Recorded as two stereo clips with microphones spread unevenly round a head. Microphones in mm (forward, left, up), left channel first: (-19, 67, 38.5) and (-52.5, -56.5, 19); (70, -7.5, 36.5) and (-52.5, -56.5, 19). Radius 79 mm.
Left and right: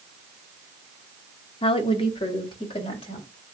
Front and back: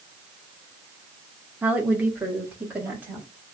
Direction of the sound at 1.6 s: 125° left.